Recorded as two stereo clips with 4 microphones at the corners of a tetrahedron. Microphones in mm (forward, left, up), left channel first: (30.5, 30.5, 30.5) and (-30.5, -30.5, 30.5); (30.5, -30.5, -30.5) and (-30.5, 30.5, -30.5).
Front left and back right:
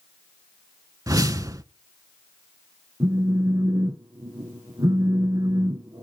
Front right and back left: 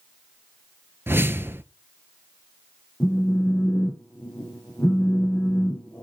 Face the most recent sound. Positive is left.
turn(degrees=-115)